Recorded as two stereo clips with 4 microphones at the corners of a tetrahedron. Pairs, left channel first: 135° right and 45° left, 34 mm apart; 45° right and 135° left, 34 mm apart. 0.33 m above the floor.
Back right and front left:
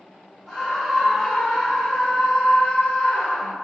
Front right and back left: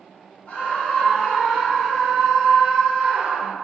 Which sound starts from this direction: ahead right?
A scream, at 0.5 s.